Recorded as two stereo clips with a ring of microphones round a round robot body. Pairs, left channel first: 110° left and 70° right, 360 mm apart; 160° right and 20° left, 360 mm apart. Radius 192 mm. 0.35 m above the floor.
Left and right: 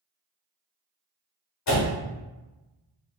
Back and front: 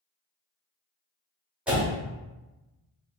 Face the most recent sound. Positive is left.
turn(degrees=110)